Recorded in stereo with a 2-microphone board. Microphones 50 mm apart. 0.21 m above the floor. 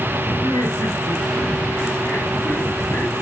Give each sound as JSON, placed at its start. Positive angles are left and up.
{"t": 0.4, "sound": "laughter", "side_deg": 55, "distance_m": 4.0}